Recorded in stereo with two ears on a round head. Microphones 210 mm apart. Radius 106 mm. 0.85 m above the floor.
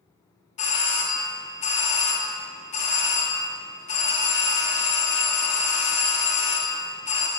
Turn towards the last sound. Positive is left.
turn(degrees=30)  # may be behind; listen again after turning